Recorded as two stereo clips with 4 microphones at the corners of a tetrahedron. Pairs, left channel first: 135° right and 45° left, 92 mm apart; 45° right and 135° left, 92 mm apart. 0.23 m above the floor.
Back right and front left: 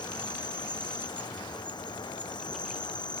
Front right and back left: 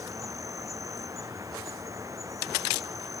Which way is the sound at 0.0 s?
175° right.